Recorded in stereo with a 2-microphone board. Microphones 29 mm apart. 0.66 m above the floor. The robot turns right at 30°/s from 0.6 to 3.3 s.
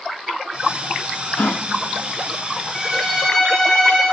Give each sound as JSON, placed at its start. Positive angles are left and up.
{"t": 1.4, "sound": "a gasp", "side_deg": 70, "distance_m": 0.6}
{"t": 2.7, "sound": "a violin", "side_deg": 10, "distance_m": 7.5}